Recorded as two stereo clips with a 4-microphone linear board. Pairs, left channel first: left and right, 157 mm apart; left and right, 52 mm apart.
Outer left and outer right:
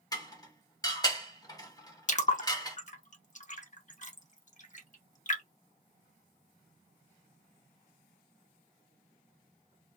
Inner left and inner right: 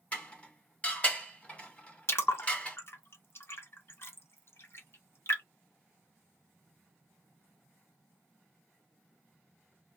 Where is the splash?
50° left (ahead or behind), 0.7 m.